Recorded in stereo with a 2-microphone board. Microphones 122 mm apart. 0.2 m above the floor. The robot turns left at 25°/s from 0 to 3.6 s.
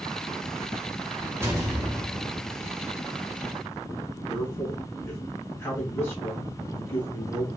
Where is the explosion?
25° right (ahead or behind), 0.8 m; by 2.5 s 30° right (ahead or behind), 0.8 m.